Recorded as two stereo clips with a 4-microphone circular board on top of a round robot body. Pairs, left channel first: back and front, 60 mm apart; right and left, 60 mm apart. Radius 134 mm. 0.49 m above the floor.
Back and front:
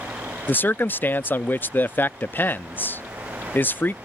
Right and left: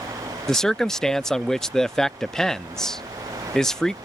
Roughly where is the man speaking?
Behind.